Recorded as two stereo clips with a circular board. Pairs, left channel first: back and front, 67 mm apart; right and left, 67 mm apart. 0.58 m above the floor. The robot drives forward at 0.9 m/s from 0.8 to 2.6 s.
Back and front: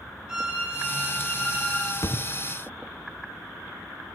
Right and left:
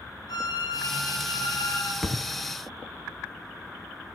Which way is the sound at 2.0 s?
Straight behind.